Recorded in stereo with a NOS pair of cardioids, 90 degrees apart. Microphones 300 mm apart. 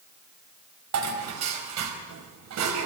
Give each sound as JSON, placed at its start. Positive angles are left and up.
{"t": 0.9, "sound": "dishes clattering", "azimuth_deg": -65, "distance_m": 4.0}